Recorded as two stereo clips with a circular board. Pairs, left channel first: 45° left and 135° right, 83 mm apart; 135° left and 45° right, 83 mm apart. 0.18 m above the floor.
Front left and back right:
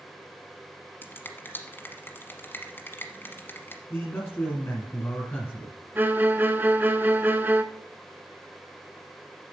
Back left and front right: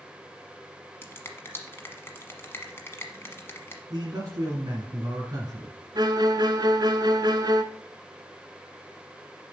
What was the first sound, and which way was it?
A finger snap, 90° left.